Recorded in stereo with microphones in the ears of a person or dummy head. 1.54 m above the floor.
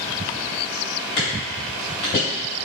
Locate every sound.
1.2 s footsteps: 30° left (ahead or behind), 1.9 m; by 2.2 s 20° left (ahead or behind), 1.6 m